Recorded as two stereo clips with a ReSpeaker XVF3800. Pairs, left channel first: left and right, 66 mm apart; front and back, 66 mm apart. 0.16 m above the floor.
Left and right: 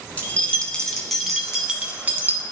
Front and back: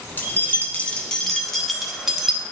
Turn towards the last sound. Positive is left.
turn(degrees=-110)